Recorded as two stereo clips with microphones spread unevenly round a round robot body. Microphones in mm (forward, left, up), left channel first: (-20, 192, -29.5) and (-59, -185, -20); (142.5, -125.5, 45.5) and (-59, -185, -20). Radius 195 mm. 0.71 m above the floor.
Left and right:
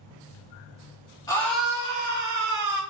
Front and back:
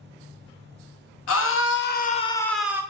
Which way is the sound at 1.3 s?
5° left.